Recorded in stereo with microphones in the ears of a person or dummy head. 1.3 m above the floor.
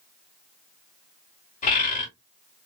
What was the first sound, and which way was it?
A bird, 40° left (ahead or behind).